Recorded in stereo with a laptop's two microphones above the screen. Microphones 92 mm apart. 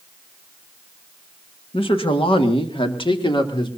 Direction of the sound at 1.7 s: 75° left (ahead or behind).